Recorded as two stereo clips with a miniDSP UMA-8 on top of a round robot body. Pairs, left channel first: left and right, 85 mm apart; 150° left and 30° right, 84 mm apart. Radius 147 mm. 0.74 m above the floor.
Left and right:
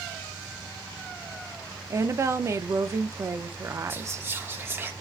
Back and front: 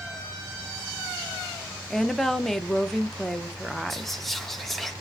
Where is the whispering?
125° right, 0.8 m.